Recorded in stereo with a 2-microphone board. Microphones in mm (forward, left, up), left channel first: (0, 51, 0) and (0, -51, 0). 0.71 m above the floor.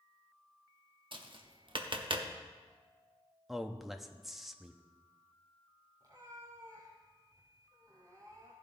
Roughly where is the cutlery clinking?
I don't hear cutlery clinking.